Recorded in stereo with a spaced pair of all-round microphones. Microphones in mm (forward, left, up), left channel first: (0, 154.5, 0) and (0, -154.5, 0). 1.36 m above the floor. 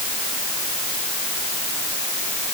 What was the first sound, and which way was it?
Only background noise.